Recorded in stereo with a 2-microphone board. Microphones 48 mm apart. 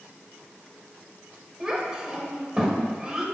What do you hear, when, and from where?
1.6 s a child speaking: 15° right (ahead or behind), 1.6 m